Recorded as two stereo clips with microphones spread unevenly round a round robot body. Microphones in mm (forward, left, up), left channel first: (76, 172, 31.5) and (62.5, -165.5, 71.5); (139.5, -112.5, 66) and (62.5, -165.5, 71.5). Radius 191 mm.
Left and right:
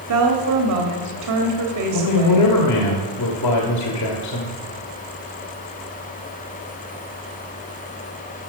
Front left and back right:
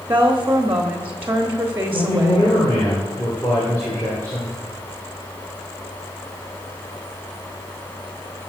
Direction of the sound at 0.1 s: 80° right.